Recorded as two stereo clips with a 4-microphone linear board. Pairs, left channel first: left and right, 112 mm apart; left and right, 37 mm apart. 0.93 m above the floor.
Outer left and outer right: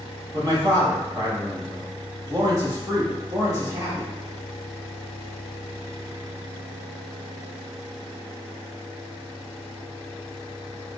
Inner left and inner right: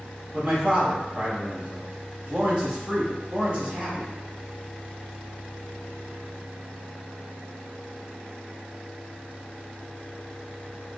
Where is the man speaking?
30° right (ahead or behind), 1.7 m.